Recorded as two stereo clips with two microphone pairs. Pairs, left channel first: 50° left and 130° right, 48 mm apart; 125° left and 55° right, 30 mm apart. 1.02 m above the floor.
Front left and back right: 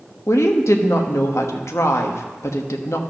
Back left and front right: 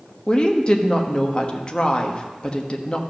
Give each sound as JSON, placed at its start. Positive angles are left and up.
{"t": 0.3, "sound": "a woman speaking", "azimuth_deg": 65, "distance_m": 1.1}